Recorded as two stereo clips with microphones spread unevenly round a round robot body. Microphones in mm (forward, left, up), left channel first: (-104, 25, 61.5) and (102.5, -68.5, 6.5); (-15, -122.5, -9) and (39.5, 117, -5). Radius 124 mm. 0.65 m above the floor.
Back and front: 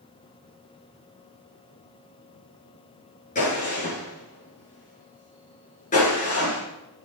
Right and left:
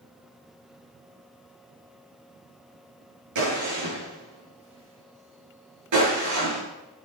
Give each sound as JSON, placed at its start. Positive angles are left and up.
{"t": 3.4, "sound": "a gunshot", "azimuth_deg": 95, "distance_m": 8.5}